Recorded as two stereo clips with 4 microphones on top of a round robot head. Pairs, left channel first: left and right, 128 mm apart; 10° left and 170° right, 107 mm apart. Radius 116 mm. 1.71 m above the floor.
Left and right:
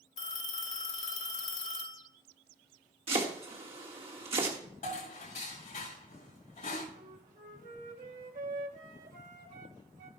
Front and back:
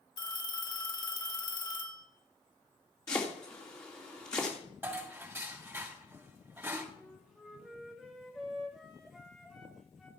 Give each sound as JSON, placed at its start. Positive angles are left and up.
{"t": 0.2, "sound": "a phone ringing", "azimuth_deg": 60, "distance_m": 1.8}
{"t": 3.1, "sound": "chopping", "azimuth_deg": -60, "distance_m": 1.7}
{"t": 4.8, "sound": "dishes clattering", "azimuth_deg": 115, "distance_m": 5.5}
{"t": 6.9, "sound": "a flute", "azimuth_deg": -85, "distance_m": 1.3}